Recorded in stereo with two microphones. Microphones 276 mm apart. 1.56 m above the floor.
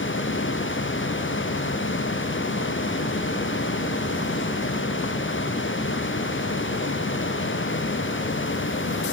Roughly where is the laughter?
No laughter in this recording.